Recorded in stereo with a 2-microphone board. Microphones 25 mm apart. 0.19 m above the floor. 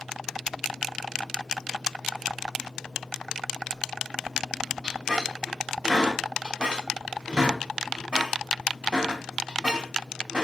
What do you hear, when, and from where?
4.8 s a squeak: 35° right (ahead or behind), 0.8 m